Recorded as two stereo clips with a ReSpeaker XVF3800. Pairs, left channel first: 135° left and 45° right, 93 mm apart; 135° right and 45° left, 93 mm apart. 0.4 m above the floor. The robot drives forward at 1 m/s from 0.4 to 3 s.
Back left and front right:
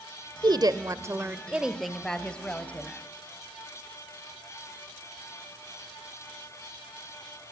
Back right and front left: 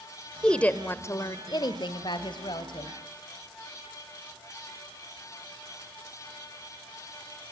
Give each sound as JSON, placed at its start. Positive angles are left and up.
{"t": 0.4, "sound": "a woman speaking", "azimuth_deg": -55, "distance_m": 1.4}